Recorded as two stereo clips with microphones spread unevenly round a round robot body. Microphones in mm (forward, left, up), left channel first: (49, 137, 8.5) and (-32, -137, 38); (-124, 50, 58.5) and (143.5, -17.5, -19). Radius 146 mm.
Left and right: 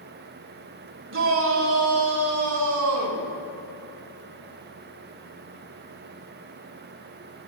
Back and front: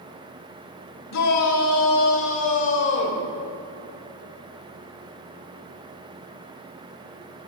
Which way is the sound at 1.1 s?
155° right.